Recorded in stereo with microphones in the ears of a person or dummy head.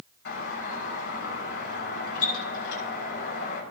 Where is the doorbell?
60° left (ahead or behind), 7 m.